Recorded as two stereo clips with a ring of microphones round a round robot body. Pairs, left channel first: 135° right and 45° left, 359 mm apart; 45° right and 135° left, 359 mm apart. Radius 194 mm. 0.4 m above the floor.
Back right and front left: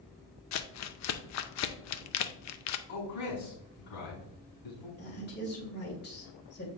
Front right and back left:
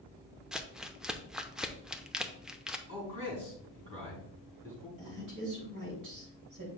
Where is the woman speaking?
165° left, 3 m.